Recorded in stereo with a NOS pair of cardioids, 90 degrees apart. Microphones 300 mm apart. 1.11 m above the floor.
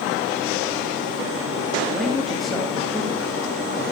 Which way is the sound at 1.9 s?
Straight ahead.